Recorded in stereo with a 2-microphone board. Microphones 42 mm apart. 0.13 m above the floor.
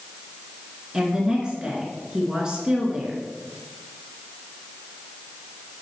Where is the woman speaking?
20° right (ahead or behind), 2.0 m.